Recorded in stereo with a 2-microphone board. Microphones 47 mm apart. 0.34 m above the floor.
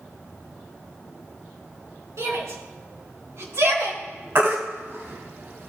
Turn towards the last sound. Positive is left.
turn(degrees=-50)  # may be behind; listen again after turning